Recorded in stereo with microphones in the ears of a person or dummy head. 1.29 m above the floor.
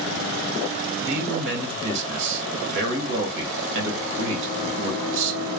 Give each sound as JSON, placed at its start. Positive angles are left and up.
{"t": 1.0, "sound": "a man speaking", "side_deg": -65, "distance_m": 1.2}